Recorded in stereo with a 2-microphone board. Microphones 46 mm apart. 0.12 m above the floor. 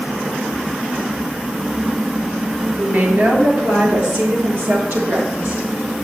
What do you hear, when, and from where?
2.8 s a woman speaking: 45° right (ahead or behind), 2 m; by 5.7 s 70° right (ahead or behind), 4.5 m